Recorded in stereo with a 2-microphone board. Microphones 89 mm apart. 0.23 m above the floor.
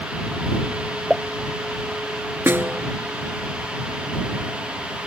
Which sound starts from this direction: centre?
A pop, at 1.1 s.